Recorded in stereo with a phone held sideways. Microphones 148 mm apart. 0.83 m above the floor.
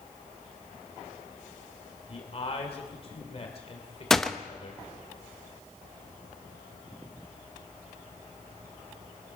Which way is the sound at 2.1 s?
40° left (ahead or behind).